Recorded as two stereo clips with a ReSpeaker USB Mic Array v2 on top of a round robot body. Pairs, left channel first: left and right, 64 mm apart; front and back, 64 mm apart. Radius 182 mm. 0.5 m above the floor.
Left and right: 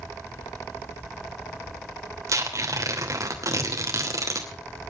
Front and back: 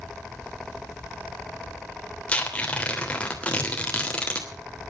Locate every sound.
2.3 s tearing paper: 70° right, 3 m